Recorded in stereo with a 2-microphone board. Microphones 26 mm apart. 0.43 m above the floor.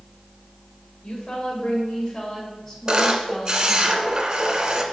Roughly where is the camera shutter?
Right.